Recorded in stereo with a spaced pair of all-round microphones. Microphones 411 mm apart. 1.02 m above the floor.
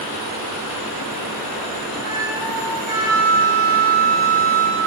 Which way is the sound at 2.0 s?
45° right (ahead or behind).